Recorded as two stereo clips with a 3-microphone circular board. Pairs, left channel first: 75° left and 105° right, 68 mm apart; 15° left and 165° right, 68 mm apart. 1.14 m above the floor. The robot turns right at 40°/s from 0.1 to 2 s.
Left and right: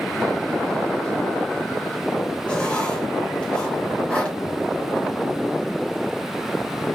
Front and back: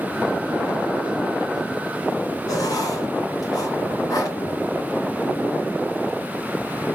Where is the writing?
Straight ahead, 3 m.